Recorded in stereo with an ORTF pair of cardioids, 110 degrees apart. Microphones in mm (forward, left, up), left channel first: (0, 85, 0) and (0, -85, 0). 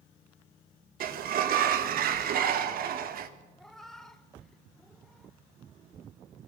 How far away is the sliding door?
About 1.7 m.